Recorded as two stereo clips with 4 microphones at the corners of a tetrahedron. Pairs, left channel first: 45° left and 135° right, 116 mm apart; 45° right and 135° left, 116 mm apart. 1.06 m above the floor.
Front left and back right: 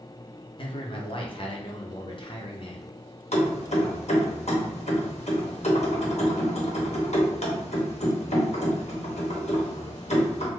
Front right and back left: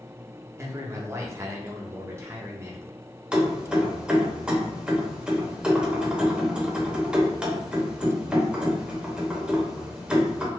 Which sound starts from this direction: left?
A man speaking, at 0.6 s.